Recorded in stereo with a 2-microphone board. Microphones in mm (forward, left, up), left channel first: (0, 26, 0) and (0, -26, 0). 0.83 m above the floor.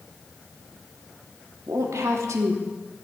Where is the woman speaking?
75° right (ahead or behind), 1.2 m.